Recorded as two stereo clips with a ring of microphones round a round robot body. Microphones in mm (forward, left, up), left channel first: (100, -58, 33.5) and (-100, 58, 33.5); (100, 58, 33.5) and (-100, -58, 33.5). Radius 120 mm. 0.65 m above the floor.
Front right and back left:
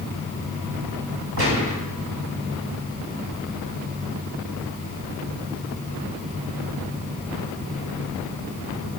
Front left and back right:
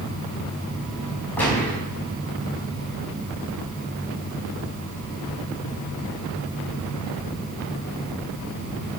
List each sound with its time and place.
1.4 s a gunshot: 115° left, 5 m